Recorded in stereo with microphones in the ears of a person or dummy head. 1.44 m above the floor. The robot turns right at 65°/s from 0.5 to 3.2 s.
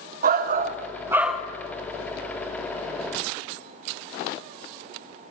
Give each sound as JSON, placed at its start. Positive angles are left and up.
{"t": 0.2, "sound": "a shout", "azimuth_deg": -60, "distance_m": 0.8}